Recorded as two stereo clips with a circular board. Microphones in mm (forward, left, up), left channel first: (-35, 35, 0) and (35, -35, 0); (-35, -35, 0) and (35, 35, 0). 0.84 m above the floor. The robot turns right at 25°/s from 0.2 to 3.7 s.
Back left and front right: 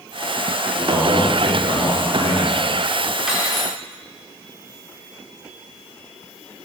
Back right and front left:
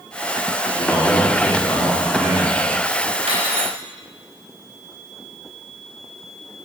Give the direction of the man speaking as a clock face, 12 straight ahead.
3 o'clock.